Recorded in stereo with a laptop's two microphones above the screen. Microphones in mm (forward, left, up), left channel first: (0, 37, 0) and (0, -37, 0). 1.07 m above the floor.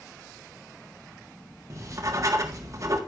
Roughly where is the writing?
Right.